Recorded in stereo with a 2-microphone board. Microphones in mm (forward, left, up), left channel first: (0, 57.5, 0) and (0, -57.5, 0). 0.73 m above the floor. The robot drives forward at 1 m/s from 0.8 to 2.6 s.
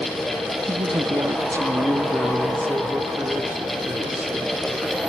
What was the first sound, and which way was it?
A woman speaking, 35° right (ahead or behind).